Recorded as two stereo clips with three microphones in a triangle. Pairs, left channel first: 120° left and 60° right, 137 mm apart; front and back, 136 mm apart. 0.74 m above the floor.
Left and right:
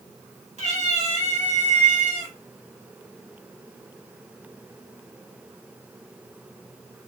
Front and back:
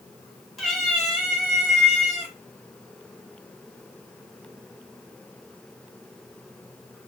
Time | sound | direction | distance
0.6 | a cat meowing | 90° right | 1.0 m